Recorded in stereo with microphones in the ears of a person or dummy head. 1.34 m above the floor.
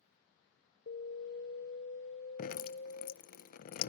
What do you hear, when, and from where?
0.9 s an alarm: 55° left (ahead or behind), 0.7 m
2.4 s dripping: 50° left (ahead or behind), 0.6 m